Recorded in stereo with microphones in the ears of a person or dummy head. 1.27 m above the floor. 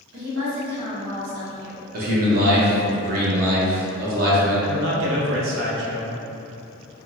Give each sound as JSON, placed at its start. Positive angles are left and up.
{"t": 0.1, "sound": "a woman speaking", "side_deg": -75, "distance_m": 1.5}
{"t": 1.9, "sound": "a man speaking", "side_deg": -50, "distance_m": 1.0}
{"t": 4.7, "sound": "a man speaking", "side_deg": -85, "distance_m": 0.8}